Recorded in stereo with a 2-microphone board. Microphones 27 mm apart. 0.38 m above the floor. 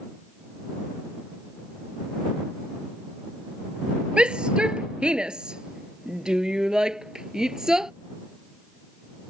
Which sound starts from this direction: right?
A shout, at 4.2 s.